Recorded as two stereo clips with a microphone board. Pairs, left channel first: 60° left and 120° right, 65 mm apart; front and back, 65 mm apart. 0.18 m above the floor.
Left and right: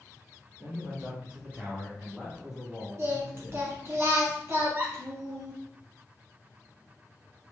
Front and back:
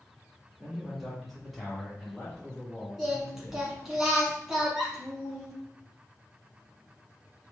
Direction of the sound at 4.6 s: 100° right.